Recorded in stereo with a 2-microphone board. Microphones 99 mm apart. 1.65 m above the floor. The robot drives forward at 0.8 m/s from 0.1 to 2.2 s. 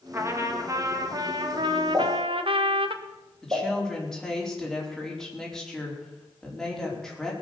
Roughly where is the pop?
Right.